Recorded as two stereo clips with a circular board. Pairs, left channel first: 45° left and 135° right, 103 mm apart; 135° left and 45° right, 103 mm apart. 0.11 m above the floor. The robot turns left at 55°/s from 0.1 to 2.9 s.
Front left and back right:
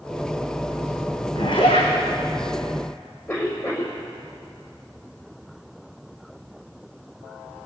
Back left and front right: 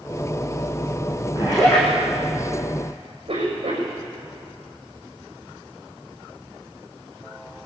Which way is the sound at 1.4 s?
95° left.